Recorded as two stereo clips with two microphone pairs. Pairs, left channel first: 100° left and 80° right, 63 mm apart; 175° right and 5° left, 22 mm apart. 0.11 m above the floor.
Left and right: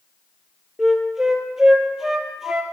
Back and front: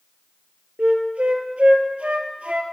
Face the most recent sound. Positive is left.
turn(degrees=0)